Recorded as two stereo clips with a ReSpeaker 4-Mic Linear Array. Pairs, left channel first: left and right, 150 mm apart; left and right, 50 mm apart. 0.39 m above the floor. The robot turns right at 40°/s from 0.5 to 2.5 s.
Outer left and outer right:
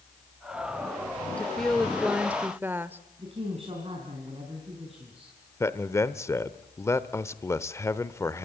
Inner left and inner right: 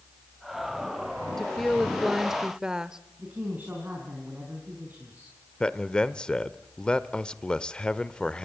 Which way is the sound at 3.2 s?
40° right (ahead or behind).